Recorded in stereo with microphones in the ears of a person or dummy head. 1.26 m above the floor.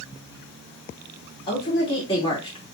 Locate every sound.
1.5 s a woman speaking: 30° left (ahead or behind), 2 m